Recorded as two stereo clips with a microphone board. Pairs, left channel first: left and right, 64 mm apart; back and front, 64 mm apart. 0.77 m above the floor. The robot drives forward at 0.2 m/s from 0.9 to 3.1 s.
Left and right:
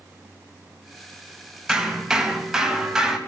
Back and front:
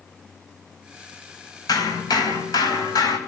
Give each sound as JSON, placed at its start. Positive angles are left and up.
{"t": 1.7, "sound": "hammering", "azimuth_deg": -175, "distance_m": 4.0}